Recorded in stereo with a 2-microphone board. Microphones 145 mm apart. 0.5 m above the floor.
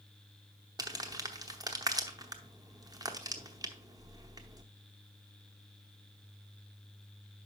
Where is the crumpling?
25° right (ahead or behind), 0.9 m.